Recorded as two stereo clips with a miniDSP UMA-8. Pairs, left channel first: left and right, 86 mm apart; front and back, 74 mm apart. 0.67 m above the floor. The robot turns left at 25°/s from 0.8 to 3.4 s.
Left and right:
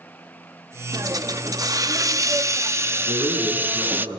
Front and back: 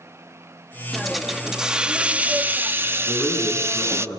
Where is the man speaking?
70° right, 8.5 m; by 4.2 s 80° right, 8.5 m.